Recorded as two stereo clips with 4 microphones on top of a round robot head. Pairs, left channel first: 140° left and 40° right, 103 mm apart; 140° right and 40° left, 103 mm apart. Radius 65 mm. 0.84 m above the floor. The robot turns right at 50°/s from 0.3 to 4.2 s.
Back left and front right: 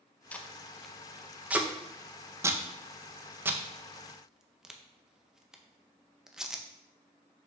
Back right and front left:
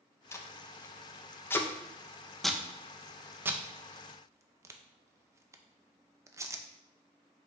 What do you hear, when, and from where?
0.3 s tape being pulled: 160° right, 0.6 m; by 6.6 s 35° left, 0.6 m